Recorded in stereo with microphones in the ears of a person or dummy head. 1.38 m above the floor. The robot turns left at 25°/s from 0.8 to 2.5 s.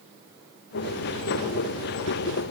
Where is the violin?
I don't hear a violin.